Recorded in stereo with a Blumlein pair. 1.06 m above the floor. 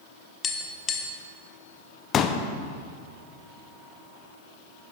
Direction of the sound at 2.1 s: 25° left.